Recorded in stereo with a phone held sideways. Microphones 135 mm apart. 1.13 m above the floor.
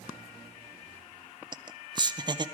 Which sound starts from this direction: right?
Laughter, at 1.5 s.